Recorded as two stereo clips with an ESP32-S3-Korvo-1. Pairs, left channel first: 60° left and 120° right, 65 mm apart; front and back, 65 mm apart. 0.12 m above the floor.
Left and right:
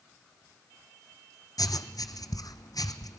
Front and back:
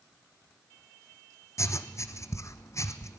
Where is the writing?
40° left, 1.0 m.